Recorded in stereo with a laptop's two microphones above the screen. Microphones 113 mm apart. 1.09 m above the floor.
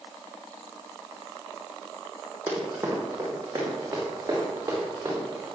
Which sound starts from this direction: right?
Running footsteps, at 2.5 s.